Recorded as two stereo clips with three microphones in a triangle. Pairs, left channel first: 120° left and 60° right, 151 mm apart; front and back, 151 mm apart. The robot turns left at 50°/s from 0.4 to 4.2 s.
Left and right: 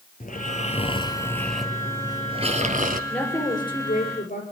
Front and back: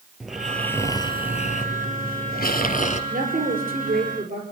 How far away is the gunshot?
No gunshot in this recording.